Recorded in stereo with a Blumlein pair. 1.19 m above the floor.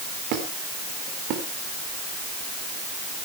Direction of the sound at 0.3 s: 40° right.